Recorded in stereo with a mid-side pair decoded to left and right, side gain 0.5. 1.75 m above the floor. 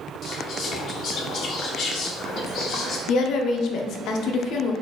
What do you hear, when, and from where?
0.2 s whispering: 55° left, 1.3 m
3.1 s a woman speaking: 65° left, 0.7 m